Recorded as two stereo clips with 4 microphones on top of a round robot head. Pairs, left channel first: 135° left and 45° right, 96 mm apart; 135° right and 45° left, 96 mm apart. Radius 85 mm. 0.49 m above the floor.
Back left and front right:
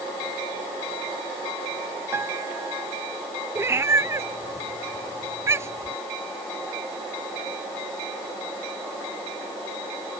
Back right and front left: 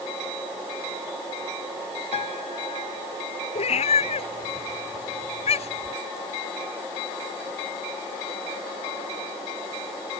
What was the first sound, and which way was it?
A piano, 110° right.